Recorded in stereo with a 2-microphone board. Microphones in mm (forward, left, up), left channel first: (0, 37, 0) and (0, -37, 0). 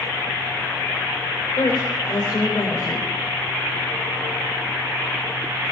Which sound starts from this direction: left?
A woman speaking, at 1.6 s.